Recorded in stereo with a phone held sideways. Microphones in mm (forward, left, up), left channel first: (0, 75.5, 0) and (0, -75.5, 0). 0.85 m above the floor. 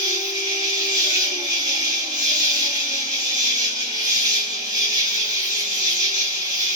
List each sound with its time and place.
0.0 s an insect: 25° right (ahead or behind), 1.3 m